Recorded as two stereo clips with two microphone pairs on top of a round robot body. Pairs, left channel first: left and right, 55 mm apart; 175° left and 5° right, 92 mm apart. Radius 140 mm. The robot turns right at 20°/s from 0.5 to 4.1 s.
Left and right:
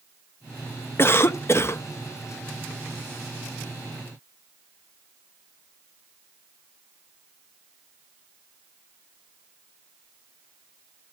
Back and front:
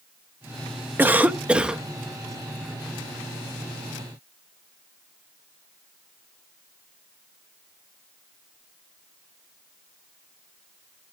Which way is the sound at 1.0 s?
65° left.